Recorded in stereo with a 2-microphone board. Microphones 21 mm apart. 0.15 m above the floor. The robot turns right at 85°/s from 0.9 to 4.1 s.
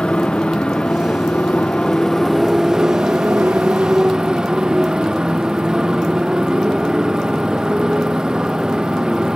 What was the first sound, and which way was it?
A motorcycle, 50° left.